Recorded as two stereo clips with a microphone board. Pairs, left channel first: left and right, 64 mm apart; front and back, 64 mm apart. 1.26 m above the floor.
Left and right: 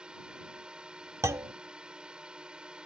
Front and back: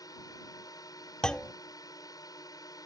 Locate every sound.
0.0 s a drone: 15° right
1.2 s a clunk: 75° right